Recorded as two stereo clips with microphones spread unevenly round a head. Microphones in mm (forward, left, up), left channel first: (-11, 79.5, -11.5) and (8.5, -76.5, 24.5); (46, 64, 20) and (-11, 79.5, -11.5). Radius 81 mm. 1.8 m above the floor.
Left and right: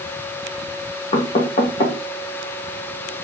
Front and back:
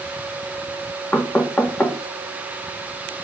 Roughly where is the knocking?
Ahead left.